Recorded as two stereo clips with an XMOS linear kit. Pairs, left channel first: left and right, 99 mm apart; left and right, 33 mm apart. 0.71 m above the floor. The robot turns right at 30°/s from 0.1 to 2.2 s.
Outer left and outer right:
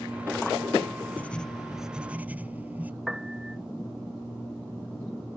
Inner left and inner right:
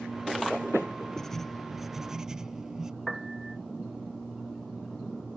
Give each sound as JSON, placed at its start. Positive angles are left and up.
{"t": 1.2, "sound": "writing", "azimuth_deg": 165}
{"t": 3.1, "sound": "a piano", "side_deg": -5}